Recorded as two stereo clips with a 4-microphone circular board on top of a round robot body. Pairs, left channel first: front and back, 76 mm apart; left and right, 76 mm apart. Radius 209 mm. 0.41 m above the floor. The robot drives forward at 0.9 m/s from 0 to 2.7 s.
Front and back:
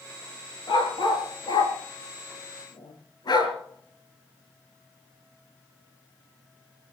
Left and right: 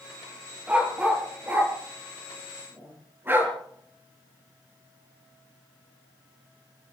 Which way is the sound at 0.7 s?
20° right.